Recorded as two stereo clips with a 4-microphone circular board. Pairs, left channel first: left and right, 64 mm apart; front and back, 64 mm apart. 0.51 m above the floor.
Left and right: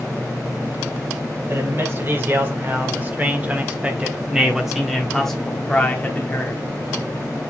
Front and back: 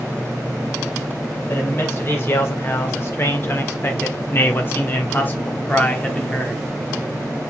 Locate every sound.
1.5 s a man speaking: 45° right, 2.5 m; by 6.6 s 65° left, 1.4 m